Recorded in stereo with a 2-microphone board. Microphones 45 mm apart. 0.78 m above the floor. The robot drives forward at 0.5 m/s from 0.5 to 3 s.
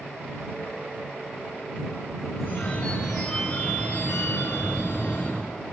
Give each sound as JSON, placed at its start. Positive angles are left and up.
{"t": 2.4, "sound": "a phone ringing", "side_deg": 55, "distance_m": 8.0}